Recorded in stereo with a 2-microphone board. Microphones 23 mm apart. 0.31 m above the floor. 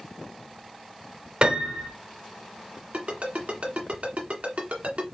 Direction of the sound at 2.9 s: 75° right (ahead or behind).